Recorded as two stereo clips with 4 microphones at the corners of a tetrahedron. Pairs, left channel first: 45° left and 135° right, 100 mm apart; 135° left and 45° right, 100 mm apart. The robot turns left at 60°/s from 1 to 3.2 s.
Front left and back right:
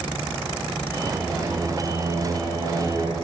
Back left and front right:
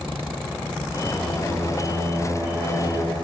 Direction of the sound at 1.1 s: 40° right.